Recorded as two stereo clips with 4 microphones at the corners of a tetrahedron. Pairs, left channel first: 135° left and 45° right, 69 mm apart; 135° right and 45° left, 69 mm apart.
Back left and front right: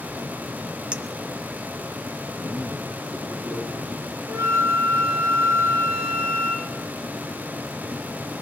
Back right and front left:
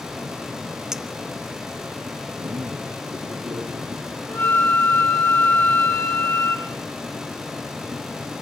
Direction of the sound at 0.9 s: 15° right.